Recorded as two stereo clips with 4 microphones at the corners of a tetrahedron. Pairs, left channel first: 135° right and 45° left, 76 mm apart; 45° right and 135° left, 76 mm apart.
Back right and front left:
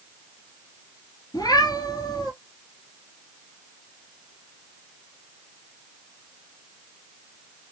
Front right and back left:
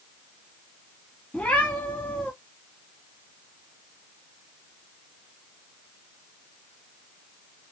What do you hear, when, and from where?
1.3 s a cat meowing: 115° right, 1.4 m